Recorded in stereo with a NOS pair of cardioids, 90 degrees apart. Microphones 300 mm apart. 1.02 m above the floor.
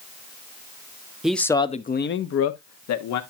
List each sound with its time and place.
1.2 s a man speaking: straight ahead, 0.9 m; by 3.2 s 75° left, 1.3 m